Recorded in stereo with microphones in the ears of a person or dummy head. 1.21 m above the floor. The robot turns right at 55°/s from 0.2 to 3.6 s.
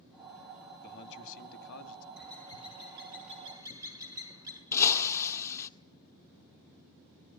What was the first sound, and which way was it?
A man speaking, 50° left.